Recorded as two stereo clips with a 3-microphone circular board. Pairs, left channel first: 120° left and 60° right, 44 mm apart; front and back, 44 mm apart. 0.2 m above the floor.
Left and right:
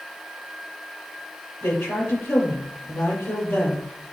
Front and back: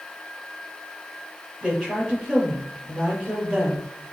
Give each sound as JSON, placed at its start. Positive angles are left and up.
{"t": 1.6, "sound": "a woman speaking", "azimuth_deg": 110, "distance_m": 4.0}